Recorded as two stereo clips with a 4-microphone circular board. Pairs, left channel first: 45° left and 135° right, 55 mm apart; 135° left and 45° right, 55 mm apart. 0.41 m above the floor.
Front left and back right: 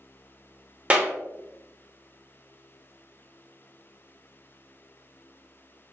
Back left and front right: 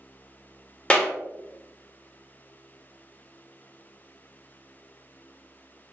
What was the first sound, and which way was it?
A clap, straight behind.